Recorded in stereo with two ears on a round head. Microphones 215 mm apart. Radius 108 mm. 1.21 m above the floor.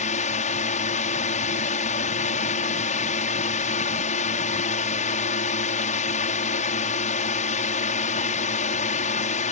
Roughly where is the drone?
Left.